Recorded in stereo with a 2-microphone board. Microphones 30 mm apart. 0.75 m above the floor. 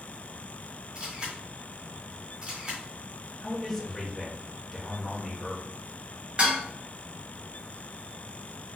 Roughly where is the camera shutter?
Right.